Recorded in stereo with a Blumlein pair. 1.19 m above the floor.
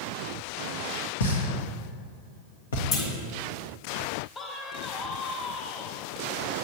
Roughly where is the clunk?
Ahead left.